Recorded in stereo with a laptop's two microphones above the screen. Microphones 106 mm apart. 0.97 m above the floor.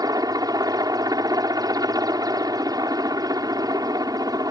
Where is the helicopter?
35° right (ahead or behind).